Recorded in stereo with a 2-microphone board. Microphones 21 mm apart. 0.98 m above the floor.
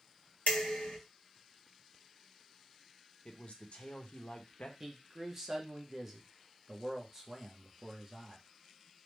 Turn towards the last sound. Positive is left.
turn(degrees=-20)  # may be behind; listen again after turning